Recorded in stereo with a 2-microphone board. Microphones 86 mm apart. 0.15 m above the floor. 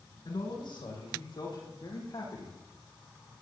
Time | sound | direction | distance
0.2 | a man speaking | 65° left (ahead or behind) | 7 m